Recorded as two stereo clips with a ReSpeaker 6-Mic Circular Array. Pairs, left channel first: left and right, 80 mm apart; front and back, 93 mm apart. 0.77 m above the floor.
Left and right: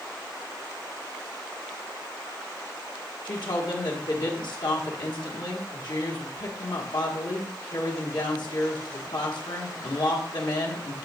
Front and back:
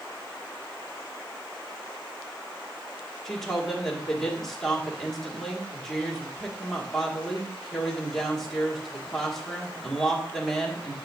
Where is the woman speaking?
85° left, 1.7 m.